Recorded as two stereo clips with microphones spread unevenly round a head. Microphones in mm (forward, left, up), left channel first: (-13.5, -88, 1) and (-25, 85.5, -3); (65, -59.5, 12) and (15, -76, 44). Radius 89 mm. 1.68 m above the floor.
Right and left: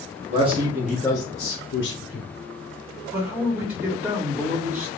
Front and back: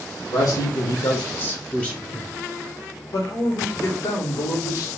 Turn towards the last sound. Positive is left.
turn(degrees=5)